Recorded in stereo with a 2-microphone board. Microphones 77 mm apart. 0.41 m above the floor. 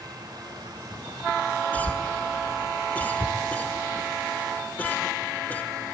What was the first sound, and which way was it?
A cough, 20° left (ahead or behind).